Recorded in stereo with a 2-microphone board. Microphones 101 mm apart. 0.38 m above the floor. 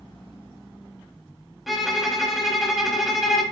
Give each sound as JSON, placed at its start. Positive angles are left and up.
{"t": 1.7, "sound": "a violin", "side_deg": 0, "distance_m": 0.5}